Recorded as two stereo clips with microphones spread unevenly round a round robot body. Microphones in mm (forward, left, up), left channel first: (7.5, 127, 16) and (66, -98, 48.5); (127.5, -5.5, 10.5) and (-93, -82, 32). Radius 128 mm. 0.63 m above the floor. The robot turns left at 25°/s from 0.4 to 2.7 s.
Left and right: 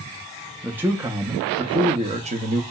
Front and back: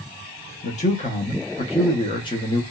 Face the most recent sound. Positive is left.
turn(degrees=-35)